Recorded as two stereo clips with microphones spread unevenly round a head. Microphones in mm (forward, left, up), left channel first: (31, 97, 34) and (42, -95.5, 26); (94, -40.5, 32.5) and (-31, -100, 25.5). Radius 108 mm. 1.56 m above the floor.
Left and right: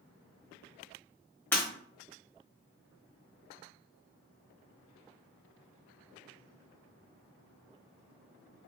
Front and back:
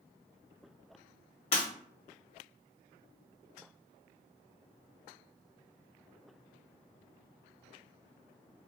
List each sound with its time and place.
1.5 s breaking glass: 15° left, 1.4 m